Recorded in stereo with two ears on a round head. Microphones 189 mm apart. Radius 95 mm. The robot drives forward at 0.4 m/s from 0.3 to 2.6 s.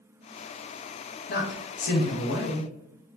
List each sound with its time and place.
1.3 s a man speaking: 45° left (ahead or behind), 0.7 m